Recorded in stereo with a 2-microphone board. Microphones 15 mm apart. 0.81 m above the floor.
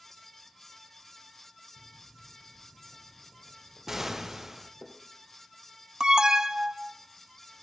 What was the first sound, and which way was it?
Footsteps, 20° left (ahead or behind).